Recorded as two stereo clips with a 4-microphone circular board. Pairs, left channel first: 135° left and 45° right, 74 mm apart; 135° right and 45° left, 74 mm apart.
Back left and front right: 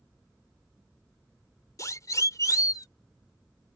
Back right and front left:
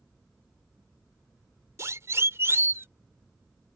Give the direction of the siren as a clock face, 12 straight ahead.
9 o'clock.